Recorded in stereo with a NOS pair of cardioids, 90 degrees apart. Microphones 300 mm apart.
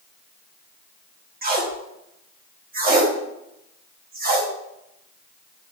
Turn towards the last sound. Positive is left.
turn(degrees=-30)